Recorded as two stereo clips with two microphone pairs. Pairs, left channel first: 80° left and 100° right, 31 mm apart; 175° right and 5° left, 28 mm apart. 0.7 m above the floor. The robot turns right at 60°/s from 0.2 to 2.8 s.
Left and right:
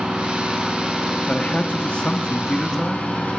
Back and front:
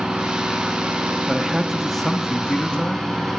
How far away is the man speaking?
About 1.1 m.